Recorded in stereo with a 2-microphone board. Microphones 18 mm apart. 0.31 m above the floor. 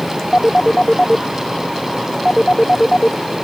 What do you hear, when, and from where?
0.3 s a phone ringing: 40° left (ahead or behind)